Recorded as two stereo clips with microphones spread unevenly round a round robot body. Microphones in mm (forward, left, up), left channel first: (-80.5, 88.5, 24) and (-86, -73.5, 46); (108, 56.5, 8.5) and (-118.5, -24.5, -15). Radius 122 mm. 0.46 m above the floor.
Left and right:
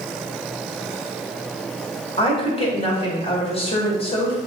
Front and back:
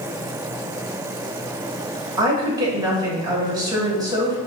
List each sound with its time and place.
2.2 s a woman speaking: 130° left, 1.5 m